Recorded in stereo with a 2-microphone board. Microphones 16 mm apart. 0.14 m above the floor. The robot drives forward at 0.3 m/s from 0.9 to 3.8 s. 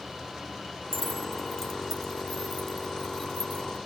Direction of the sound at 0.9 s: 20° left (ahead or behind).